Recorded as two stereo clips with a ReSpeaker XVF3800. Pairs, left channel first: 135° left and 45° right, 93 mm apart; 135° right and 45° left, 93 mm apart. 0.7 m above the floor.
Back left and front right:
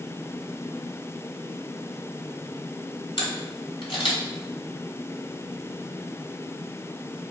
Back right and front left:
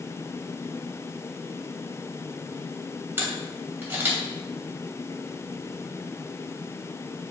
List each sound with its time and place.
3.2 s a camera shutter: 115° left, 3 m